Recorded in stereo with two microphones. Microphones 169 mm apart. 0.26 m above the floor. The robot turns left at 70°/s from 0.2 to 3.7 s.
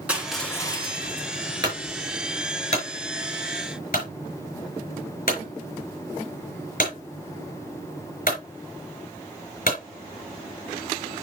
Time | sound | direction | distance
0.1 | crushing | 170° right | 1.9 m
1.6 | a clunk | 30° right (ahead or behind) | 5 m